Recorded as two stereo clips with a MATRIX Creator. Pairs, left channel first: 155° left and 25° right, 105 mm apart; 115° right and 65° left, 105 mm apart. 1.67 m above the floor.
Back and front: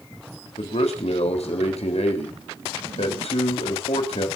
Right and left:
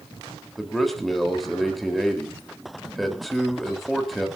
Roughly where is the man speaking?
Behind.